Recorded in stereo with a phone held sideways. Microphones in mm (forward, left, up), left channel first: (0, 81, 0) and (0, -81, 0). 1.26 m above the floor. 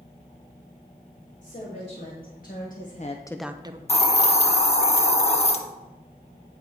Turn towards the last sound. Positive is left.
turn(degrees=40)  # may be behind; listen again after turning